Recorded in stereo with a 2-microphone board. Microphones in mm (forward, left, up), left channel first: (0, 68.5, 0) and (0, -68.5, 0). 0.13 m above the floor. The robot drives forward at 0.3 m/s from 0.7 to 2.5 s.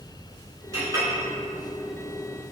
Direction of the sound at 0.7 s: 25° right (ahead or behind).